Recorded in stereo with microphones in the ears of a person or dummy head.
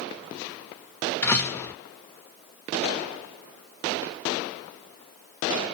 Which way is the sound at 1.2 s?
10° left (ahead or behind).